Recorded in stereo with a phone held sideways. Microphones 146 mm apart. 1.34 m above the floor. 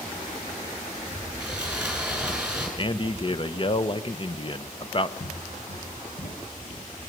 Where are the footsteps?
80° left, 7 m; by 7.1 s 70° left (ahead or behind), 7 m.